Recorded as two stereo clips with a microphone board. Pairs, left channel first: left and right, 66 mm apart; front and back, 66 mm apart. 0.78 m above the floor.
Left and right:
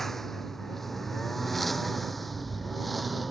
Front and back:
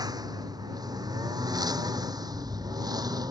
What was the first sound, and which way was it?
A lawn mower, 175° left.